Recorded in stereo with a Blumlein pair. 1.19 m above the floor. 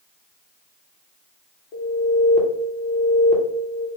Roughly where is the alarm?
Ahead left.